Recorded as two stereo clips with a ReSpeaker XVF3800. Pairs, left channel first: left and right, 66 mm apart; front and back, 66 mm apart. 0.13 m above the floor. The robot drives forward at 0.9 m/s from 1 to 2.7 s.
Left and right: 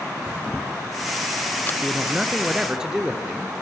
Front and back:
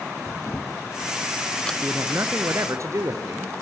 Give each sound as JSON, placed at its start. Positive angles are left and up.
{"t": 0.3, "sound": "a camera shutter", "azimuth_deg": 30, "distance_m": 1.5}
{"t": 1.8, "sound": "a man speaking", "azimuth_deg": -160, "distance_m": 1.7}